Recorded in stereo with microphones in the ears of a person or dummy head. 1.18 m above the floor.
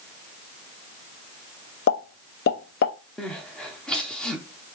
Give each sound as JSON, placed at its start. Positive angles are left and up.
{"t": 1.9, "sound": "a pop", "side_deg": 65, "distance_m": 1.0}
{"t": 3.2, "sound": "crying", "side_deg": 5, "distance_m": 0.6}